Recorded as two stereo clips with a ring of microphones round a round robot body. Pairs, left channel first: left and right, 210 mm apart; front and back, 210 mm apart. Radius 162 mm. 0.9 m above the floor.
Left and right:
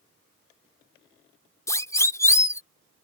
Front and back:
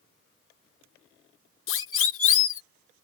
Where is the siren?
15° left.